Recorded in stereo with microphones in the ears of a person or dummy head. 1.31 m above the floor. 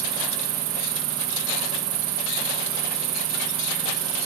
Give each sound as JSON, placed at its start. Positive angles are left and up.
{"t": 0.0, "sound": "an insect", "side_deg": -20, "distance_m": 1.6}